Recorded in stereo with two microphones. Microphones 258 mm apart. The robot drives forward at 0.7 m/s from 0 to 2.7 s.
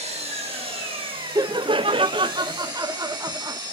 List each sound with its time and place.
0.0 s an engine running: 25° right (ahead or behind), 3 m; by 3.7 s 15° right (ahead or behind), 5 m
1.4 s laughter: 15° right (ahead or behind), 0.6 m